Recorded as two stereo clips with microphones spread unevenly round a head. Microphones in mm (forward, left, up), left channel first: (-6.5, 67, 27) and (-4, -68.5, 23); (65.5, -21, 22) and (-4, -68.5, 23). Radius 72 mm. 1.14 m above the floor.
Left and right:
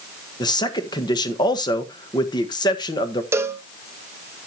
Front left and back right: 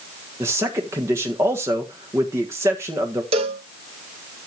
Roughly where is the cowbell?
Behind.